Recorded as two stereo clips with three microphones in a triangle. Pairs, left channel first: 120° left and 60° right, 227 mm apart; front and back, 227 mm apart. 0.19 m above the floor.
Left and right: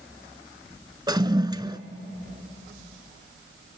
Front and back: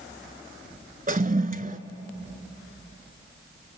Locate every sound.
1.1 s a toilet flushing: 130° right, 0.8 m